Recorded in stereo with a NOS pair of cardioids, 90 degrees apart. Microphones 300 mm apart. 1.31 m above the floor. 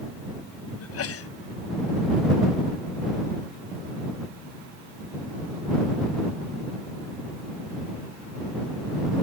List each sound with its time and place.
0.8 s a sneeze: 55° left